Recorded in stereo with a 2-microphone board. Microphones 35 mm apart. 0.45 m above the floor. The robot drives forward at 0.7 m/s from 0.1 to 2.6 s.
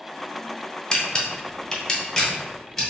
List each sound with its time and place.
0.9 s a camera shutter: 25° left (ahead or behind), 0.6 m; by 2.9 s 15° left (ahead or behind), 1.2 m